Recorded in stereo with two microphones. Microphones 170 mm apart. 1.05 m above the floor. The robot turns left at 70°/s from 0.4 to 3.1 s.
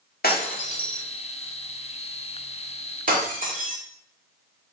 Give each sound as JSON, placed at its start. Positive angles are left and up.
{"t": 0.2, "sound": "breaking glass", "side_deg": 60, "distance_m": 1.6}